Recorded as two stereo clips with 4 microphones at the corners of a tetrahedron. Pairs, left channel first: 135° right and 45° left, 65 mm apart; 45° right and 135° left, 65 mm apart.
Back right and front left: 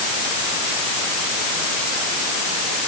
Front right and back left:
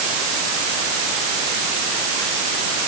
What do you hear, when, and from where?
Only background noise.